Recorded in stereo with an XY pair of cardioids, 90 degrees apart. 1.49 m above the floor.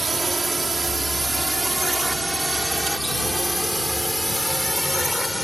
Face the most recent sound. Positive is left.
turn(degrees=10)